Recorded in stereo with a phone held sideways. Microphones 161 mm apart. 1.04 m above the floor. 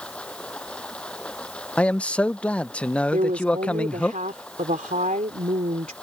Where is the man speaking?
10° left (ahead or behind).